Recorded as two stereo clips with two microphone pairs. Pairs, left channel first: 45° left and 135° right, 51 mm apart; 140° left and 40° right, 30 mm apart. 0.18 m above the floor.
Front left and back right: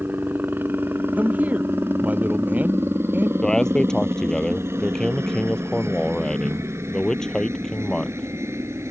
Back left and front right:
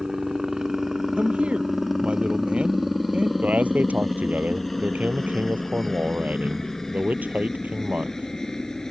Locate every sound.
0.0 s a helicopter: 105° right; by 8.9 s 145° right
1.2 s a man speaking: 80° right
3.4 s a man speaking: 35° right